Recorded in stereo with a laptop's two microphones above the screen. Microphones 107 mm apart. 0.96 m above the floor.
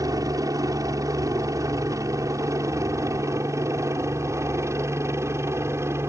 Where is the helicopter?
30° right (ahead or behind); by 6.1 s 25° right (ahead or behind).